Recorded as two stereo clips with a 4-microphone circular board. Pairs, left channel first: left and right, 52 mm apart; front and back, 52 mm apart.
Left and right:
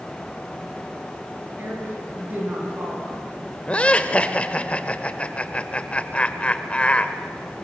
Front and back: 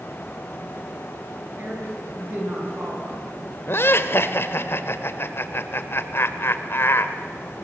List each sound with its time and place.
1.6 s a woman speaking: 135° right, 9.5 m
3.7 s laughter: 30° left, 1.6 m